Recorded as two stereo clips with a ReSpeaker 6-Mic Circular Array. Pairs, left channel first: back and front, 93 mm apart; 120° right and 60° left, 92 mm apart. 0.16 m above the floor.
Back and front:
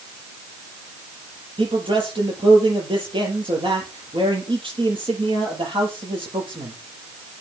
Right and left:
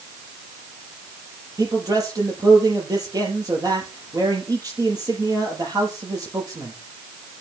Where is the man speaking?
15° left, 6 m.